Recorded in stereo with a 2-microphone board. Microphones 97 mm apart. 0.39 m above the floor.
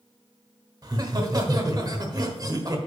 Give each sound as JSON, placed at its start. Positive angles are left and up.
{"t": 0.8, "sound": "laughter", "side_deg": -45, "distance_m": 1.2}